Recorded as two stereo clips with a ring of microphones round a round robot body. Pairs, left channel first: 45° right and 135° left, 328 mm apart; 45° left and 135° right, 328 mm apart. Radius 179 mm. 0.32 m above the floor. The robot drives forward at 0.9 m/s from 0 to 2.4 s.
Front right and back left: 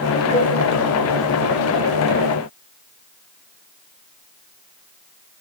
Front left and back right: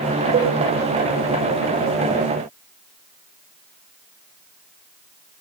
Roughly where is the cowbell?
Right.